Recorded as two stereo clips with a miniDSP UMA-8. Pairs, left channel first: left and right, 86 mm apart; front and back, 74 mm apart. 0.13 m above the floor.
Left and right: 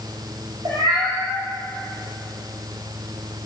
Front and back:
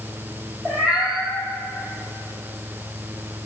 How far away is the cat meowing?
About 2 m.